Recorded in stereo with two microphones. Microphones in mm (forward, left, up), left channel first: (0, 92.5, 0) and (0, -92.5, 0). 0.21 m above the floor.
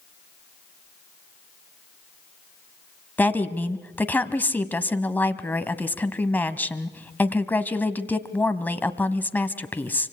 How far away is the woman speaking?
About 1.1 m.